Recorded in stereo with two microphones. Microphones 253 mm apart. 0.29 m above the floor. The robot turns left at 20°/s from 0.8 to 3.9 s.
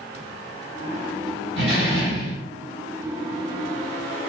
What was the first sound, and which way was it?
A door slam, 50° right (ahead or behind).